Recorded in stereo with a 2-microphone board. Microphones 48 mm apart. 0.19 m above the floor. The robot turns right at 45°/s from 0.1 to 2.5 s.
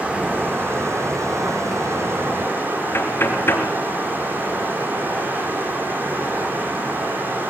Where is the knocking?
55° left (ahead or behind), 3 m.